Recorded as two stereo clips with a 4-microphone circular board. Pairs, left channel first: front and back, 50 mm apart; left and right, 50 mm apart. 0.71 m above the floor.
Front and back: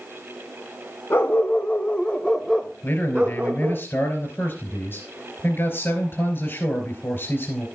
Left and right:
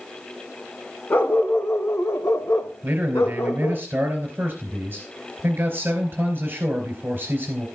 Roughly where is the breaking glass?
No breaking glass in this recording.